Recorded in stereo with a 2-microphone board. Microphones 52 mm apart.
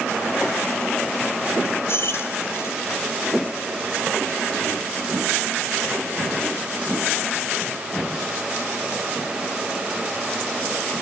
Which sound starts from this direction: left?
Keys jangling, at 1.9 s.